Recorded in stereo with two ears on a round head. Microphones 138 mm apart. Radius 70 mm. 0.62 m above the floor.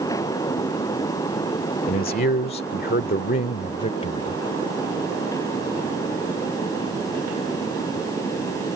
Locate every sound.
1.9 s a man speaking: 55° left (ahead or behind); by 4.4 s 35° left (ahead or behind)